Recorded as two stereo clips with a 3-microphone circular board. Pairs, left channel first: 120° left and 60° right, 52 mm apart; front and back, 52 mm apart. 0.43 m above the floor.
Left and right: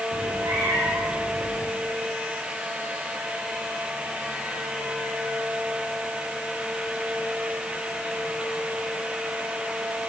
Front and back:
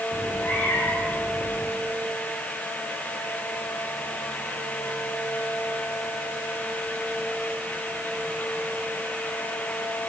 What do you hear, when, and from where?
0.1 s a cat meowing: 60° right, 8.5 m